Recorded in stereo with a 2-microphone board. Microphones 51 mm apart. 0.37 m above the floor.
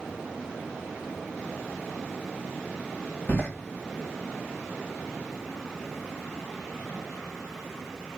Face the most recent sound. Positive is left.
turn(degrees=45)  # may be behind; listen again after turning